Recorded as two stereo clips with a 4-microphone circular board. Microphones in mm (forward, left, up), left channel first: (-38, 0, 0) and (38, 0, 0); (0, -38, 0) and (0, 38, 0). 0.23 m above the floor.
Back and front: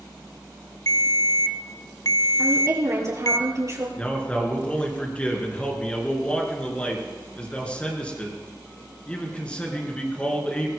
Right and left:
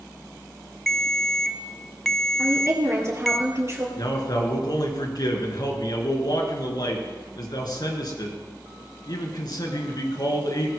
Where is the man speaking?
105° right, 4 m.